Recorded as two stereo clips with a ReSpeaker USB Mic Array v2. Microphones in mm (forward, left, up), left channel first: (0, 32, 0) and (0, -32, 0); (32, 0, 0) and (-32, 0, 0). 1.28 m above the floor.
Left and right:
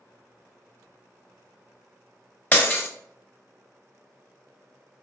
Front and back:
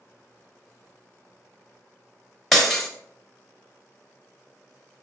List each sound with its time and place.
2.5 s breaking glass: 95° left, 0.9 m